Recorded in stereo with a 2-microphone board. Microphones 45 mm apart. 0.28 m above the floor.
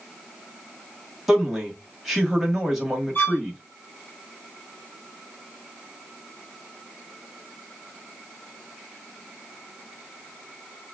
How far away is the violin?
About 1.8 m.